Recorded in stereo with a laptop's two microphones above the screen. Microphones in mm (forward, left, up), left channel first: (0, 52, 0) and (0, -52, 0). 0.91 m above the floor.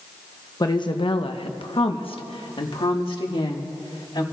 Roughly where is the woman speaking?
Left.